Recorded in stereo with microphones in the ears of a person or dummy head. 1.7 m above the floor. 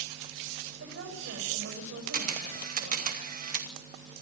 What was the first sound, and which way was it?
A woman speaking, 60° right (ahead or behind).